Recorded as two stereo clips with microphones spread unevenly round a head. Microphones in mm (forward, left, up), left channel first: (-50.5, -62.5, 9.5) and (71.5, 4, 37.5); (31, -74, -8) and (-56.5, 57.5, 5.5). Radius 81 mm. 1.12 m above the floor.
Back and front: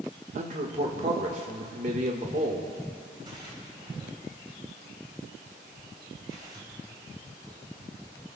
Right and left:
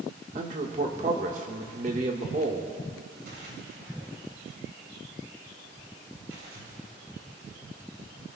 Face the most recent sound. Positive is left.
turn(degrees=90)